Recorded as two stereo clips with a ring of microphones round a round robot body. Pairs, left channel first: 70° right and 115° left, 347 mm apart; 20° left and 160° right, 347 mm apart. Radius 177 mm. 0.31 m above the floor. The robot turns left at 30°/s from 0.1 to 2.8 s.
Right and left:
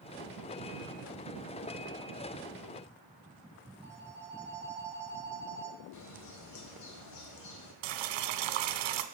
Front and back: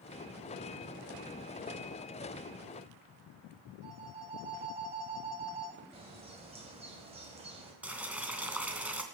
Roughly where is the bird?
Right.